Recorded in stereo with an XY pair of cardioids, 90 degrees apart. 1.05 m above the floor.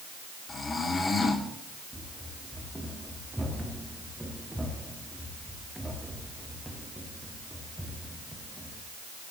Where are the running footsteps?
10° right, 5 m.